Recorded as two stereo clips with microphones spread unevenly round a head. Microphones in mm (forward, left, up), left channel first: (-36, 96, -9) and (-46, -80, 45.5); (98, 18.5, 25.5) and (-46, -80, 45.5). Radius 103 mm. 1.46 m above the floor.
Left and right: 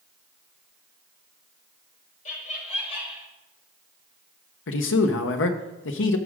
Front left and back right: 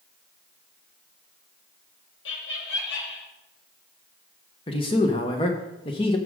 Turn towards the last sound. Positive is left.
turn(degrees=100)